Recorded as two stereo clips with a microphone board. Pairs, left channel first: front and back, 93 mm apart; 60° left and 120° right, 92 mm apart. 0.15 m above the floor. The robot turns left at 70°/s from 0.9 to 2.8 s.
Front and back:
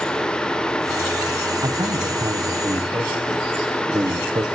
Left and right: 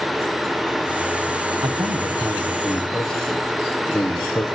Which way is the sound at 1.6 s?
130° right.